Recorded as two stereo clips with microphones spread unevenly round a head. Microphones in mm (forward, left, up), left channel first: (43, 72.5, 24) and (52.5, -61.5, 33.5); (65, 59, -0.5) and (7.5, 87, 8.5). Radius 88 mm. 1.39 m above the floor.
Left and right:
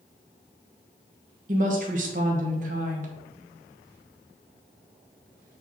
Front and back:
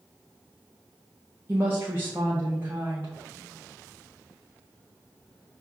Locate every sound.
1.5 s a woman speaking: 125° right, 1.2 m